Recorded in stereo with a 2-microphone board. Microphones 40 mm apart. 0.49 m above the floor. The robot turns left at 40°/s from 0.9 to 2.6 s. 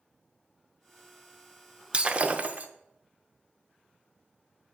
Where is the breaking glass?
25° right (ahead or behind), 0.5 m; by 2.7 s 40° right (ahead or behind), 0.5 m.